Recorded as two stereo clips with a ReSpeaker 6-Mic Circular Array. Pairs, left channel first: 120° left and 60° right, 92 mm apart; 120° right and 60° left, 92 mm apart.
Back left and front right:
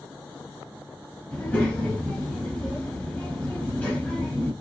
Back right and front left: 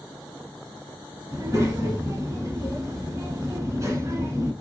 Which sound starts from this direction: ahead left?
A child speaking, at 1.3 s.